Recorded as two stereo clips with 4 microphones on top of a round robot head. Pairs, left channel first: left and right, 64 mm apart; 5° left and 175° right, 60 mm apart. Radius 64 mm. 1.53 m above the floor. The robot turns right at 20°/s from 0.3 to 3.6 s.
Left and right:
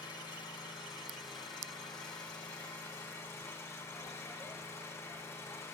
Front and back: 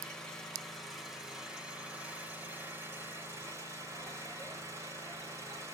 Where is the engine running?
85° left, 6 m; by 5.7 s 150° left, 6 m.